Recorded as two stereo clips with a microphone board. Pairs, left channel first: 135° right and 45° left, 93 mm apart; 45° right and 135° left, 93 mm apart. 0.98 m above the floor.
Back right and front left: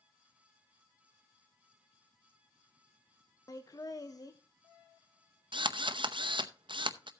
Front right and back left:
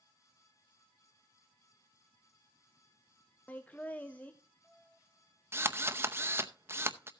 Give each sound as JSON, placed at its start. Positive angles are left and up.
{"t": 3.5, "sound": "laughter", "azimuth_deg": -110, "distance_m": 0.9}
{"t": 5.5, "sound": "a drill", "azimuth_deg": 70, "distance_m": 0.7}